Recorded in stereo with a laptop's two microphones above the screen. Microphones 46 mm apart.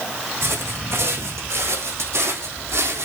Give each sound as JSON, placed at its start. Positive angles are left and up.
{"t": 0.4, "sound": "footsteps", "side_deg": -70, "distance_m": 3.5}